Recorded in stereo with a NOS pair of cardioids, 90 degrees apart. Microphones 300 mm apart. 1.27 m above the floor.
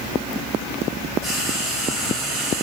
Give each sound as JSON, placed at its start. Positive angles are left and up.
{"t": 1.2, "sound": "frying", "azimuth_deg": -65, "distance_m": 5.5}